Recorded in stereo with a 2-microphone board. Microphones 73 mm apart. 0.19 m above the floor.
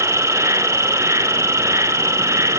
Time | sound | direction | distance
0.0 | an insect | 40° right (ahead or behind) | 0.9 m